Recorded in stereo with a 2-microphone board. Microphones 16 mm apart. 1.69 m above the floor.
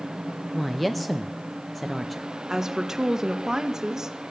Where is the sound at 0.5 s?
Centre (ahead or behind), 0.6 m.